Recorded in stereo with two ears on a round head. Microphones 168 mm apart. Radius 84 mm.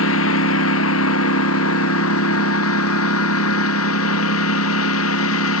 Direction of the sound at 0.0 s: 80° left.